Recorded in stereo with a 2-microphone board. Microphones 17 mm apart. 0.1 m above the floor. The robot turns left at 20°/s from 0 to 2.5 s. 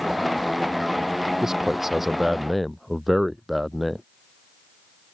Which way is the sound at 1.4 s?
25° right (ahead or behind).